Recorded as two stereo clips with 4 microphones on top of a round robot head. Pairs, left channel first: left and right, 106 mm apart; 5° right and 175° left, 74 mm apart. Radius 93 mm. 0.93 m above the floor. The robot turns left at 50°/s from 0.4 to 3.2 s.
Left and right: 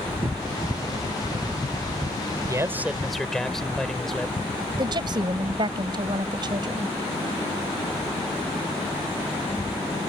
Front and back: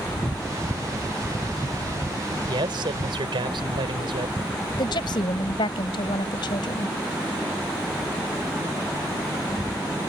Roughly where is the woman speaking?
Ahead right.